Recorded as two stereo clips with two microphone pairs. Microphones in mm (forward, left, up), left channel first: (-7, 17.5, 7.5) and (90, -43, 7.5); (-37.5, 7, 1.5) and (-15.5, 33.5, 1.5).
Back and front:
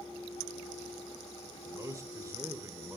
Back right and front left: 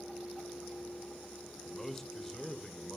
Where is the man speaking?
55° right, 0.9 m.